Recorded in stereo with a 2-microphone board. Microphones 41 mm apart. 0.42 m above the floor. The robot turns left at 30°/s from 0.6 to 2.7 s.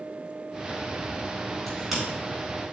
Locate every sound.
1.7 s a crack: centre (ahead or behind), 4 m; by 2.0 s 10° right (ahead or behind), 4 m